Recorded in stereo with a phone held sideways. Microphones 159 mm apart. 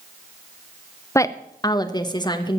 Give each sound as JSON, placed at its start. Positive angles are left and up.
{"t": 1.1, "sound": "a woman speaking", "side_deg": 20, "distance_m": 0.6}